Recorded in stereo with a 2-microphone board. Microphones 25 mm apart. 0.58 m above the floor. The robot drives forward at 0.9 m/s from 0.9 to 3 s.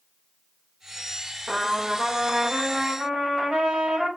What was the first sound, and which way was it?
A trumpet, 30° right (ahead or behind).